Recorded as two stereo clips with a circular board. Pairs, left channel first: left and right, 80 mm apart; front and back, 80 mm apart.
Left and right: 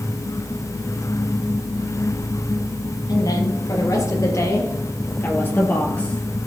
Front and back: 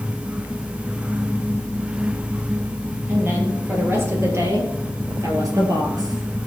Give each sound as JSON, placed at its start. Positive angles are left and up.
{"t": 3.1, "sound": "a woman speaking", "azimuth_deg": 120, "distance_m": 4.0}